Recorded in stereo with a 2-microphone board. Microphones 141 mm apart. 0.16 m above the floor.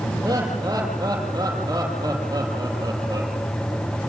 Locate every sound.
0.2 s laughter: 25° right (ahead or behind), 6 m